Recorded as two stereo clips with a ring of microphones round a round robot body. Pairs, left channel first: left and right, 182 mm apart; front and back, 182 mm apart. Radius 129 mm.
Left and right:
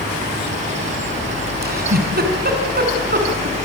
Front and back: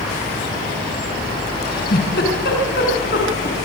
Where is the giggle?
55° right, 4.5 m.